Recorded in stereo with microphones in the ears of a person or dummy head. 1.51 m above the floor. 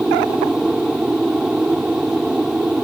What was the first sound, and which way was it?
An aircraft, 5° left (ahead or behind).